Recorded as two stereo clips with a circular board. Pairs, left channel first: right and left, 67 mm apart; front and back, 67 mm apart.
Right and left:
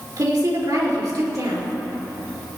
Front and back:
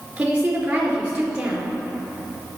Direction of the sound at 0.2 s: 110° left.